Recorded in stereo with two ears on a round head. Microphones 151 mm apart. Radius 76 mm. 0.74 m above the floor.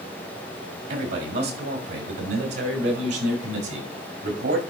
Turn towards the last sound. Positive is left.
turn(degrees=-80)